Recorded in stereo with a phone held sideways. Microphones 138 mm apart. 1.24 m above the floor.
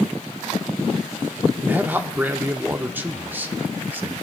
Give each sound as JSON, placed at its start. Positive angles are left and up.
{"t": 1.6, "sound": "a man speaking", "side_deg": -15, "distance_m": 0.7}